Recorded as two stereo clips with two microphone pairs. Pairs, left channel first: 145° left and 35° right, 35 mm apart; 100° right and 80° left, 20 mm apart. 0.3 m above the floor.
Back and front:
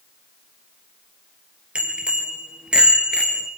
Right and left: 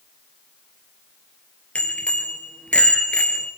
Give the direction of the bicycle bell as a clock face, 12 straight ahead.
3 o'clock.